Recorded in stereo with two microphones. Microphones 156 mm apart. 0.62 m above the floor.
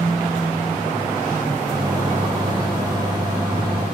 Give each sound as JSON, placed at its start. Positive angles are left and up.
{"t": 1.7, "sound": "a microwave", "side_deg": -25, "distance_m": 0.9}